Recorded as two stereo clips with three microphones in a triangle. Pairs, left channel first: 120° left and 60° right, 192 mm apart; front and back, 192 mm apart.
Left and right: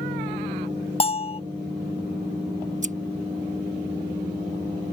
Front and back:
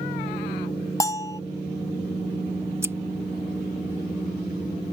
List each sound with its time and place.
1.0 s a bell: 65° left
2.8 s scissors: 105° right